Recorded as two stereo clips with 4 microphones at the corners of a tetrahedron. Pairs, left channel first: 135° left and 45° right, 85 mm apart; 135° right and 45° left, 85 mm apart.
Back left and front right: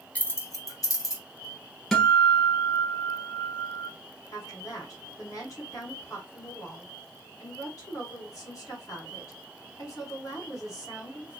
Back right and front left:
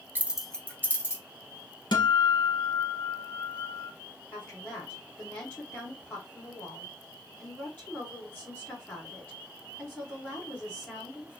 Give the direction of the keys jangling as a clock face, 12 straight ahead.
9 o'clock.